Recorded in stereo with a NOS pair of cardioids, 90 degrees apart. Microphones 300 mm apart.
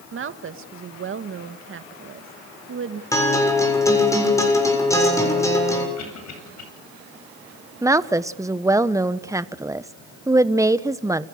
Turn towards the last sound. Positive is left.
turn(degrees=-10)